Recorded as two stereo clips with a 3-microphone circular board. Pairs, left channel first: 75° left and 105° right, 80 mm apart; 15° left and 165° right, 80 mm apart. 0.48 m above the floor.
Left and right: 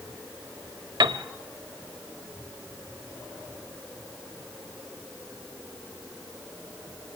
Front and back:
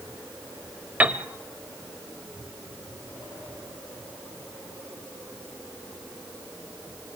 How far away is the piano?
About 1.1 m.